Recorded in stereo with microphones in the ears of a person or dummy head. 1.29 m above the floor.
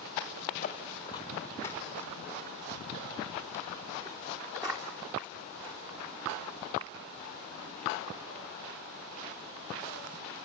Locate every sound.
0.6 s footsteps: 30° left (ahead or behind), 1.8 m; by 9.9 s 40° right (ahead or behind), 8 m